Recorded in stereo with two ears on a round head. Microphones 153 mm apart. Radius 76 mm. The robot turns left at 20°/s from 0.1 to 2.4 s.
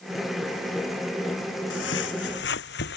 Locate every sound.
1.7 s footsteps: 75° left (ahead or behind); by 3.0 s 65° left (ahead or behind)